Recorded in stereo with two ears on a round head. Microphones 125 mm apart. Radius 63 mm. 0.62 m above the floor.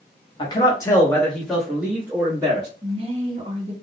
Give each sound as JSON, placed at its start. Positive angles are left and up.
{"t": 0.4, "sound": "a man speaking", "side_deg": 35, "distance_m": 1.0}
{"t": 2.8, "sound": "a woman speaking", "side_deg": -40, "distance_m": 1.3}